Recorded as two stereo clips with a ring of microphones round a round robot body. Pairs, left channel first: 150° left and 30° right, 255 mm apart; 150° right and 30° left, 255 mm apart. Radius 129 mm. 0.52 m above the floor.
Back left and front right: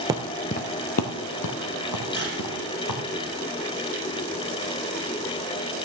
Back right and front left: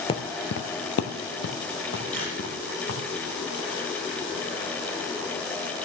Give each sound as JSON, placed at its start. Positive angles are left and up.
{"t": 0.1, "sound": "footsteps", "azimuth_deg": -90, "distance_m": 0.5}
{"t": 2.1, "sound": "a camera shutter", "azimuth_deg": 75, "distance_m": 6.0}